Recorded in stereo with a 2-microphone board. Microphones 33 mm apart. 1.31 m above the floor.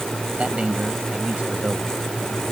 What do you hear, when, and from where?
0.4 s a man speaking: 40° right (ahead or behind)